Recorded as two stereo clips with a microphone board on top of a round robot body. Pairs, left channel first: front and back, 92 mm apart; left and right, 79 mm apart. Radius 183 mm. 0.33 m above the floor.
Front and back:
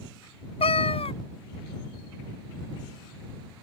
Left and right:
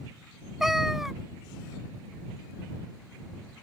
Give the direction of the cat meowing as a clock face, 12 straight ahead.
12 o'clock.